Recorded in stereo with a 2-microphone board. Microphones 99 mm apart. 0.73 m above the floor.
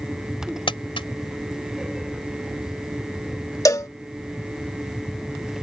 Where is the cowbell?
35° left (ahead or behind).